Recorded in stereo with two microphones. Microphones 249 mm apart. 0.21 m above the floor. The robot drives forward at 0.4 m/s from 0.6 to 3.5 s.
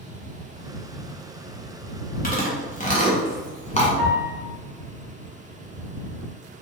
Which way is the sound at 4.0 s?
10° left (ahead or behind).